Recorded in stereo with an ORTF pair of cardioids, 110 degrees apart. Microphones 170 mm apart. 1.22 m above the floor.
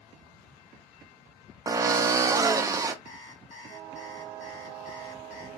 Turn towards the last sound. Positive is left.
turn(degrees=40)